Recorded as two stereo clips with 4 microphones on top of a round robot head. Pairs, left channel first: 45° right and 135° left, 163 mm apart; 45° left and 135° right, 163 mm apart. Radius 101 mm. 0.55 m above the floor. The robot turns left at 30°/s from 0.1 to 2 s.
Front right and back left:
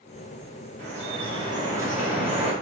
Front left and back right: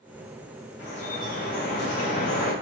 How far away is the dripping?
About 3 m.